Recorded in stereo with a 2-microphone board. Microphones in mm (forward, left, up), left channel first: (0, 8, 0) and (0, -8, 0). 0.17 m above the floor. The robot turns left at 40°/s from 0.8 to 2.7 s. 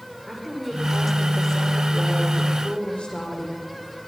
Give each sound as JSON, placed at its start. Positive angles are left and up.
{"t": 0.3, "sound": "a woman speaking", "azimuth_deg": -175, "distance_m": 8.5}